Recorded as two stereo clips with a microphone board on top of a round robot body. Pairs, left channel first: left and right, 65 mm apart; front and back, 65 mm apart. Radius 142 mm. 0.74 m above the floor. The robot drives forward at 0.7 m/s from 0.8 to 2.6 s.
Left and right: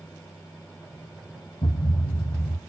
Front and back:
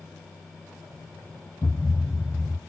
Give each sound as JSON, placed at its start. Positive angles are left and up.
{"t": 1.6, "sound": "a thud", "azimuth_deg": 70, "distance_m": 1.4}